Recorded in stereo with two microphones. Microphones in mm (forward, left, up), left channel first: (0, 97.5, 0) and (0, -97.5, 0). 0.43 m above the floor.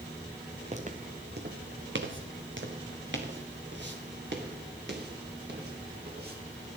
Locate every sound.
0.7 s footsteps: 35° right (ahead or behind), 1.4 m; by 6.4 s 55° right (ahead or behind), 4.5 m